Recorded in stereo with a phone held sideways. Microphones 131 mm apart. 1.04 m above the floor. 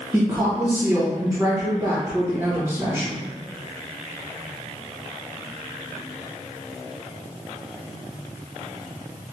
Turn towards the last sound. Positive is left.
turn(degrees=-20)  # may be behind; listen again after turning